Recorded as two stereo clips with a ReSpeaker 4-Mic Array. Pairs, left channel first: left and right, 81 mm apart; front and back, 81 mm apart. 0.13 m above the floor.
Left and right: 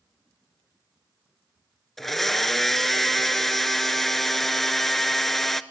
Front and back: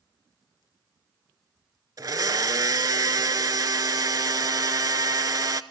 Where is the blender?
175° left, 0.6 m.